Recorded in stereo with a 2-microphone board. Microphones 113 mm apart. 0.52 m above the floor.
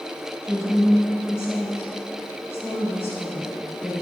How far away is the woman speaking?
About 2.5 m.